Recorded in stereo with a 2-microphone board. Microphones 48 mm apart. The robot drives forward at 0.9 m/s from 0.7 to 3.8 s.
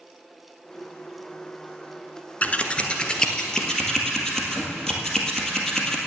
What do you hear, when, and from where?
2.4 s scissors: 35° left (ahead or behind), 0.7 m; by 6.0 s 10° left (ahead or behind), 1.9 m